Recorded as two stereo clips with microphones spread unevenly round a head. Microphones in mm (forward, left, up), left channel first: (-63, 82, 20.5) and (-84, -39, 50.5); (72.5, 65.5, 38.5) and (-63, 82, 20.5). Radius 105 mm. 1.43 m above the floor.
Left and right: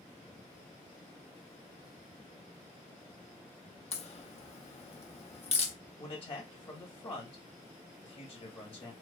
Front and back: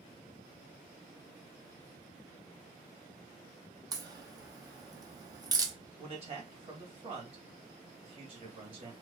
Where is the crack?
110° left, 0.7 m.